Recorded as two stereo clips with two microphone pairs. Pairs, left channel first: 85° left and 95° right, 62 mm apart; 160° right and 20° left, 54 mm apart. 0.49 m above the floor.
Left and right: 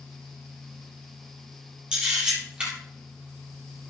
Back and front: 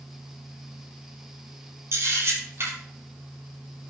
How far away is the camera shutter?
About 7.5 m.